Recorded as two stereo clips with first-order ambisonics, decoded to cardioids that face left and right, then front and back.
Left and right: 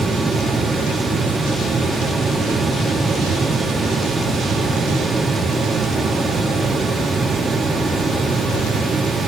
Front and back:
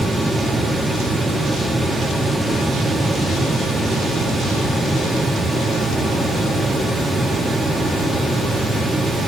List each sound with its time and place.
Only background noise.